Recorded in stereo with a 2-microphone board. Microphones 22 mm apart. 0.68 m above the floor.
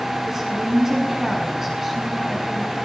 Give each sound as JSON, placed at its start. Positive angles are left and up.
{"t": 0.3, "sound": "a woman speaking", "side_deg": -20, "distance_m": 7.0}